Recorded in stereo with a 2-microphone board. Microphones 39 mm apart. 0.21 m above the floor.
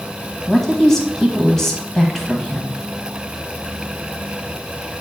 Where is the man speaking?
15° left (ahead or behind), 1.4 m.